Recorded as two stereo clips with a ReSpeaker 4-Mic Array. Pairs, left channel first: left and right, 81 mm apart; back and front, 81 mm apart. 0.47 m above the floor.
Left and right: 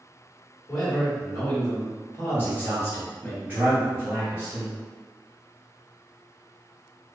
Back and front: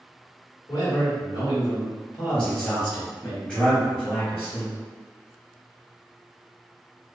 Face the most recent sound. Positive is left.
turn(degrees=-120)